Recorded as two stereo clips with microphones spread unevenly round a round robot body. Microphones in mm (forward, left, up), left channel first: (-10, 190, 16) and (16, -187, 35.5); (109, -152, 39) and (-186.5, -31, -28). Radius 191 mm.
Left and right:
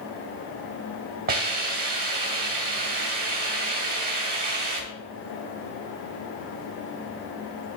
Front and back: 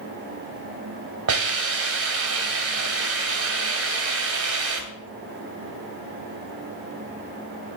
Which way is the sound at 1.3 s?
155° right.